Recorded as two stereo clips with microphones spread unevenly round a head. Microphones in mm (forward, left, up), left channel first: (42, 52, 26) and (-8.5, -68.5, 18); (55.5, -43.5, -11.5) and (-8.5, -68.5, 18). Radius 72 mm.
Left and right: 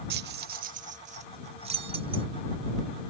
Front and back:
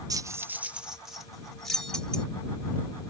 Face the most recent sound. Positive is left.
turn(degrees=-65)